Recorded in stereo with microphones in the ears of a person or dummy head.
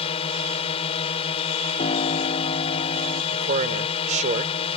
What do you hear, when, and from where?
0.0 s a drone: 35° left (ahead or behind)
1.8 s a piano: 40° left (ahead or behind)
3.3 s a man speaking: 40° right (ahead or behind)